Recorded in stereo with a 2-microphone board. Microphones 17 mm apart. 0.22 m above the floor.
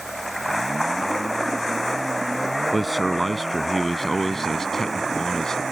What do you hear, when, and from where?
2.7 s a man speaking: 10° right (ahead or behind); by 5.6 s 35° left (ahead or behind)